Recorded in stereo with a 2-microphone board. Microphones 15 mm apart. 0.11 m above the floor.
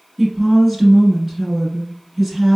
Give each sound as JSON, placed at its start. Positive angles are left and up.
{"t": 0.2, "sound": "a woman speaking", "side_deg": -15, "distance_m": 1.1}